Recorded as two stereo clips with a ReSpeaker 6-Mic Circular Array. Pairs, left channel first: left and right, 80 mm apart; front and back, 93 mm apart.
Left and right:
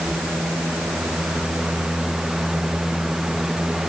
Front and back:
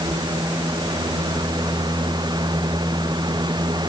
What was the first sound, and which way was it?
Only background noise.